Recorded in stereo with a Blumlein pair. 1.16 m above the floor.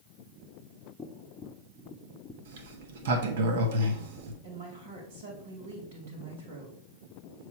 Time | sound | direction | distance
1.0 | tapping | 20° left | 0.7 m
2.5 | a sliding door | 55° right | 0.9 m
4.4 | a woman speaking | 60° right | 2 m